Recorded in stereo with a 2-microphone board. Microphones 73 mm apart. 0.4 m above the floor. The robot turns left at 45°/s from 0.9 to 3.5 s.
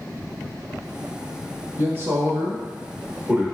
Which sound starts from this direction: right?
A man speaking, at 1.8 s.